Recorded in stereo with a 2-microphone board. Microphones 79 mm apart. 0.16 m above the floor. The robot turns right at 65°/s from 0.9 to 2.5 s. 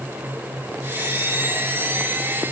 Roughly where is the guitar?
No guitar in this recording.